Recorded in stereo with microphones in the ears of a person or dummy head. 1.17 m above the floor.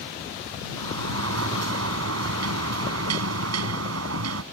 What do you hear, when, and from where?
0.8 s a sliding door: 85° right